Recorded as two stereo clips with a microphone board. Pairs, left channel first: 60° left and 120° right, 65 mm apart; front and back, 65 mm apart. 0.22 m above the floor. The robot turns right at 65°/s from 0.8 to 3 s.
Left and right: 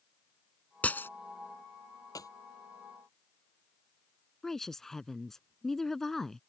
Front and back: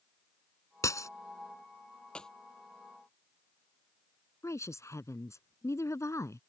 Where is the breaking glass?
5° right; by 1.1 s 15° left.